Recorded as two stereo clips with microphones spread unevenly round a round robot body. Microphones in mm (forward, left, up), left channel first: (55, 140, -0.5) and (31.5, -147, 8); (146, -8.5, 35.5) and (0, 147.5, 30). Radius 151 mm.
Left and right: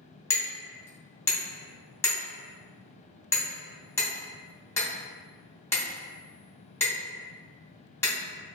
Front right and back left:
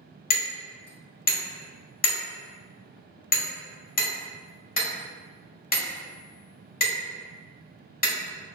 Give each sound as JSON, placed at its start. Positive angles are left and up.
{"t": 0.3, "sound": "hammering", "azimuth_deg": 5, "distance_m": 1.2}